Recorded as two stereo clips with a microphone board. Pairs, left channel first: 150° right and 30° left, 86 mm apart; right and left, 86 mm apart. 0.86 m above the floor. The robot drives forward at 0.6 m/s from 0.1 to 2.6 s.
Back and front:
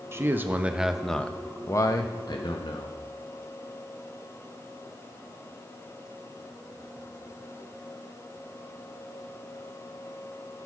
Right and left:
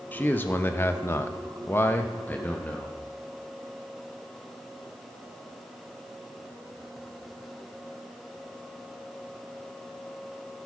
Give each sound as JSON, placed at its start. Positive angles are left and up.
{"t": 0.1, "sound": "a man speaking", "azimuth_deg": -25, "distance_m": 1.0}